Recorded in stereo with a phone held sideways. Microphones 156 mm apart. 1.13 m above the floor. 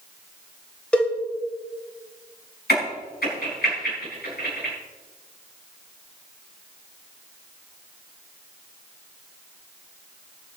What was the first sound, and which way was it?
A cowbell, 5° left (ahead or behind).